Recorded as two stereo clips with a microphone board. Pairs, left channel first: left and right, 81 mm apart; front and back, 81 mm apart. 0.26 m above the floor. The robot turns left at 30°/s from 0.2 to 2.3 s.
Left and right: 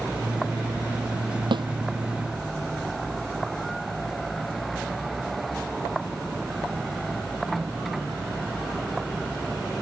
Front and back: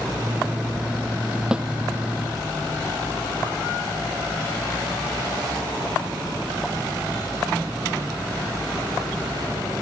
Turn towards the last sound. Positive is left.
turn(degrees=-125)